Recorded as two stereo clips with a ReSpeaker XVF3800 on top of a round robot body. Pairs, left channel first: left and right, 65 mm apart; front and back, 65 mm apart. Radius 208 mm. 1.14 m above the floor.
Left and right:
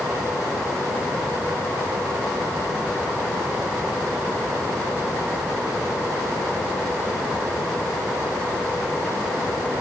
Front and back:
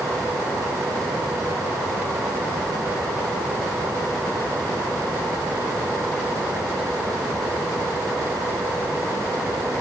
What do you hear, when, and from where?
Only background noise.